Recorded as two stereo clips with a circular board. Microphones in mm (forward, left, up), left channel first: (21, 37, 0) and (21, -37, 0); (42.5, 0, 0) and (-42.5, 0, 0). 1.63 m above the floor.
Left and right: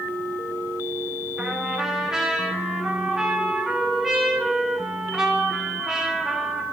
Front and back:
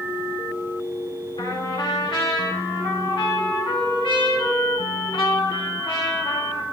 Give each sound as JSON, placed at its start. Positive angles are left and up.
{"t": 1.4, "sound": "a trumpet", "azimuth_deg": -5, "distance_m": 2.5}